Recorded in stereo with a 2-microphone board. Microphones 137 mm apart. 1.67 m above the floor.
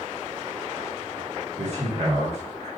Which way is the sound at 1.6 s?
55° right (ahead or behind).